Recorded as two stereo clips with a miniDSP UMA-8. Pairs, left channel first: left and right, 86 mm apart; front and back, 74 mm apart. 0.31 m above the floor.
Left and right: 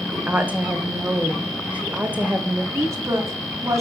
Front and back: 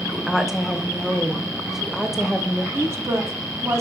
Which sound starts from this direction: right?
A woman speaking, at 0.1 s.